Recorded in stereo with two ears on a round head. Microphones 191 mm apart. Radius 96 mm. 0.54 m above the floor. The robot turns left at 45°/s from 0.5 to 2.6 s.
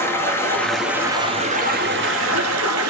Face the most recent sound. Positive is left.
turn(degrees=-85)